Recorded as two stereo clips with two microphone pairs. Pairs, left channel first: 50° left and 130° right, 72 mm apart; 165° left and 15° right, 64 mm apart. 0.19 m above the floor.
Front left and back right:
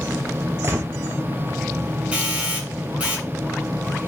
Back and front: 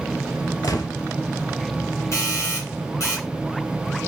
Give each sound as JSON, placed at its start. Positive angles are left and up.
{"t": 0.6, "sound": "a gunshot", "azimuth_deg": 180, "distance_m": 0.8}
{"t": 2.1, "sound": "a doorbell", "azimuth_deg": 160, "distance_m": 2.5}